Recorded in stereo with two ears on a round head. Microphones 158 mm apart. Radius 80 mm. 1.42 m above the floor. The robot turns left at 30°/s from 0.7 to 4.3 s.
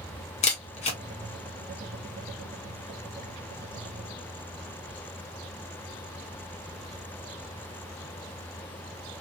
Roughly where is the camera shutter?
Left.